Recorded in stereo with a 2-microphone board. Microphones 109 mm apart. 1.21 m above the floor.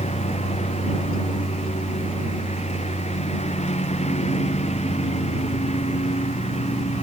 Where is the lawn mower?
90° left; by 7.0 s 85° left.